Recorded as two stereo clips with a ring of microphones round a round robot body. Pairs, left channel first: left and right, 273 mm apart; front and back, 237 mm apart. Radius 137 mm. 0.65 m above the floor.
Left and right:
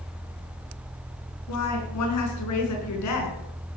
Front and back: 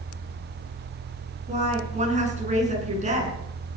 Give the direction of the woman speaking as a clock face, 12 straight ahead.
8 o'clock.